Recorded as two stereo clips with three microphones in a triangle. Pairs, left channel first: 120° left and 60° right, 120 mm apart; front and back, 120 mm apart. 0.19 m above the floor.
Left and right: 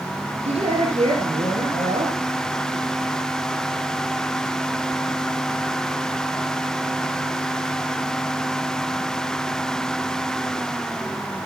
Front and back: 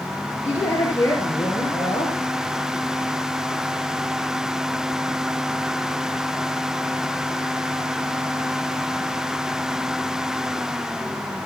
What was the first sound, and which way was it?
A woman speaking, 65° right.